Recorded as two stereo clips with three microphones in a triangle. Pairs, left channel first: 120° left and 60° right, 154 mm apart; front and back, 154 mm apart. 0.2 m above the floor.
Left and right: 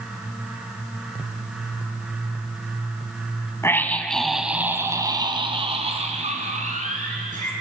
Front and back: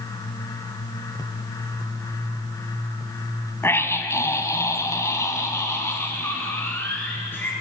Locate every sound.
3.6 s a scream: 60° left, 1.7 m; by 7.5 s 75° right, 3 m